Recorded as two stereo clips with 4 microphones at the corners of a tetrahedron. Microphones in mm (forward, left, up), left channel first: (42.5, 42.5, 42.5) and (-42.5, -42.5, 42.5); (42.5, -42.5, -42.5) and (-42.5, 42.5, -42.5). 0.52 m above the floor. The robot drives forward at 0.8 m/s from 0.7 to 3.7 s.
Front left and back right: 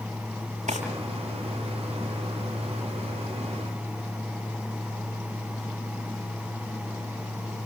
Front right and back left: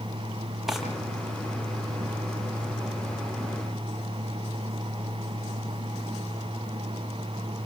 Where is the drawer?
135° right, 7 m; by 0.8 s 140° right, 7 m.